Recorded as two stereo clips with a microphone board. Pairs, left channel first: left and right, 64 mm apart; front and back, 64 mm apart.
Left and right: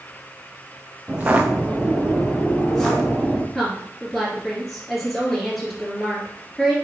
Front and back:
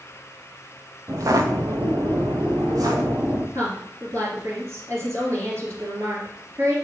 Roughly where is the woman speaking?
Behind.